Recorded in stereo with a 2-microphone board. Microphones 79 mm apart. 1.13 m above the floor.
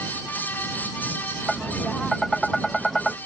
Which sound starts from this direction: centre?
Tapping, at 1.5 s.